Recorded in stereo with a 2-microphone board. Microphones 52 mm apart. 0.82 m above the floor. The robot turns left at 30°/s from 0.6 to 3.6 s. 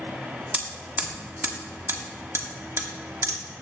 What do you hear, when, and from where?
0.5 s hammering: 20° right (ahead or behind), 1.3 m; by 3.4 s 70° right (ahead or behind), 1.3 m